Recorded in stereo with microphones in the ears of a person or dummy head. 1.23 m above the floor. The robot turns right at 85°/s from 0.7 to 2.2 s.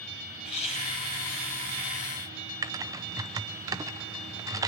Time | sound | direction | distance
0.4 | laughter | 35° left | 7 m
2.6 | typing on a keyboard | 15° right (ahead or behind) | 0.6 m